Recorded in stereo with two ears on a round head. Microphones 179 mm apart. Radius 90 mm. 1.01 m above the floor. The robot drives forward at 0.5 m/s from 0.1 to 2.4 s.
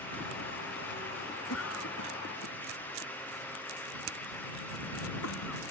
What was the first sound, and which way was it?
A cough, 80° left.